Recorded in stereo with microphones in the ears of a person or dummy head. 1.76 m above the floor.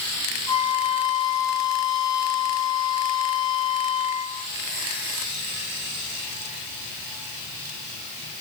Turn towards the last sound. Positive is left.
turn(degrees=-75)  # may be behind; listen again after turning